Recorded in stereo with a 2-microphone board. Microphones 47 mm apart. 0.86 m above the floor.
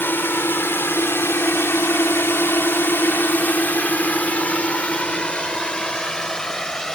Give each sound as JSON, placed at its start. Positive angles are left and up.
{"t": 0.0, "sound": "a drone", "side_deg": 60}